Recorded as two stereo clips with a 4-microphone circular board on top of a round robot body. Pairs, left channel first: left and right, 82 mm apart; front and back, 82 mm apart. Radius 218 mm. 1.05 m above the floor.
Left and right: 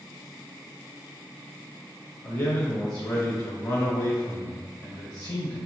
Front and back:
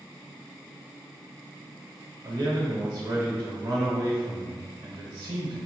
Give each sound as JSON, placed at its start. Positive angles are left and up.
{"t": 2.2, "sound": "a man speaking", "azimuth_deg": 135, "distance_m": 1.0}